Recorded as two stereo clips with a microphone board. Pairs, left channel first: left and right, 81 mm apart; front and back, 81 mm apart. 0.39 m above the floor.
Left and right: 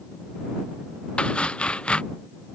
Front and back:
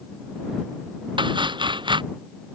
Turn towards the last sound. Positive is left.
turn(degrees=165)